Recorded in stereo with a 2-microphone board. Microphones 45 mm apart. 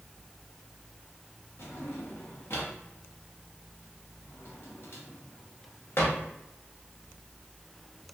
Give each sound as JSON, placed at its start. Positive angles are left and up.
{"t": 1.6, "sound": "a drawer", "side_deg": 60, "distance_m": 1.0}